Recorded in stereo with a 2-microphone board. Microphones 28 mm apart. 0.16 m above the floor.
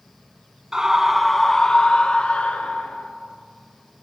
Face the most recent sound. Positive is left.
turn(degrees=60)  # may be behind; listen again after turning